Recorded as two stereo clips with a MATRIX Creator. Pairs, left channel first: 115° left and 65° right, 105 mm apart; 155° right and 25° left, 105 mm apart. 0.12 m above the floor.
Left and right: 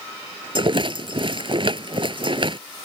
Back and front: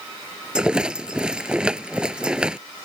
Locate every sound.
0.6 s a rattle: 55° right